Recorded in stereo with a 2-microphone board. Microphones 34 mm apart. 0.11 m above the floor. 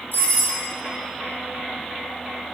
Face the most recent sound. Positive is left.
turn(degrees=65)  # may be behind; listen again after turning